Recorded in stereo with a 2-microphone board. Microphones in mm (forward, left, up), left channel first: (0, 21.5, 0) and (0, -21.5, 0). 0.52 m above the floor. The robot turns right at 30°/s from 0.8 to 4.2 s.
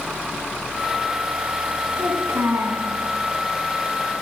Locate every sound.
2.0 s a child speaking: 70° right (ahead or behind), 2.5 m; by 2.9 s 80° right, 2.5 m